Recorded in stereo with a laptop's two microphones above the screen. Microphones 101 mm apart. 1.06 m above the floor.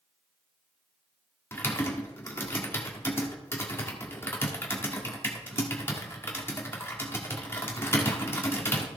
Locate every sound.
1.5 s typing on a keyboard: 25° left (ahead or behind), 1.4 m